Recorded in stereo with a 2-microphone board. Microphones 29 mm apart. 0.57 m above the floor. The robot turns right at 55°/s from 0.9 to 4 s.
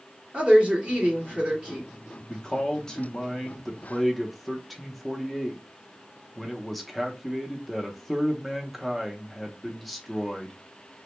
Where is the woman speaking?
80° right, 1.6 m; by 1.9 s 30° right, 1.6 m.